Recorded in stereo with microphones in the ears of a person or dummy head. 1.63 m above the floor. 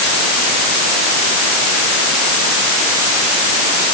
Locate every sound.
Only background noise.